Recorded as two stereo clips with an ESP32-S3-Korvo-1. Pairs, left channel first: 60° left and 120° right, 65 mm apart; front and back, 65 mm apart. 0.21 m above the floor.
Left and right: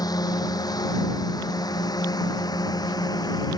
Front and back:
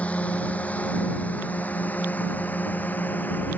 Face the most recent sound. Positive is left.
turn(degrees=65)